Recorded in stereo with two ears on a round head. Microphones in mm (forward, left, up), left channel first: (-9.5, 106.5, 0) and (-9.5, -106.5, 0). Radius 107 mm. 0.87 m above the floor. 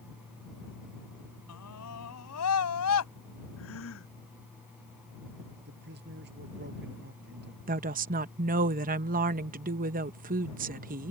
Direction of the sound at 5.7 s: 45° right (ahead or behind).